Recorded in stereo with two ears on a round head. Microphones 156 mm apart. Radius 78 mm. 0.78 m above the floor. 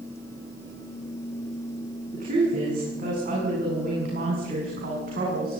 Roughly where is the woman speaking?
Right.